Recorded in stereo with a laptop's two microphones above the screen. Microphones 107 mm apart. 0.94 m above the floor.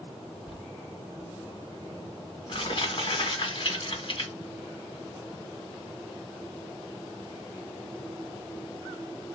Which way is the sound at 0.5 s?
50° left (ahead or behind).